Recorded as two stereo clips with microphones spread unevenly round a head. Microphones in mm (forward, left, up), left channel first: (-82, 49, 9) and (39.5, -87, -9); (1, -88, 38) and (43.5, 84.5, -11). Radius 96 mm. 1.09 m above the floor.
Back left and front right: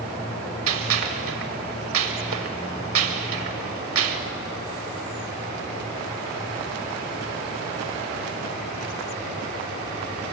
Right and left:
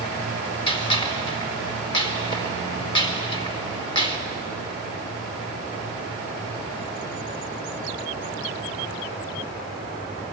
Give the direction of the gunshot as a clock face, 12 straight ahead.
2 o'clock.